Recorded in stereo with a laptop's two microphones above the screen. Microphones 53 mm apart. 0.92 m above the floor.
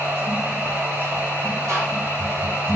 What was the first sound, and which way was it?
A machine running, 40° right (ahead or behind).